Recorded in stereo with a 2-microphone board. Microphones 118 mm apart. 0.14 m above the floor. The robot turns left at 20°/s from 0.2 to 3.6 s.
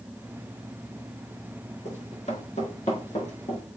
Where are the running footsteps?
80° left, 5.5 m; by 3.6 s 70° left (ahead or behind), 4.5 m.